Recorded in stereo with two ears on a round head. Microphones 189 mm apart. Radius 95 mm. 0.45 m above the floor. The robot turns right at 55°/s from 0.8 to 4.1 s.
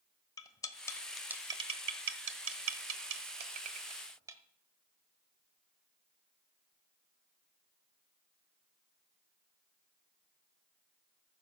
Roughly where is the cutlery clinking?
Centre.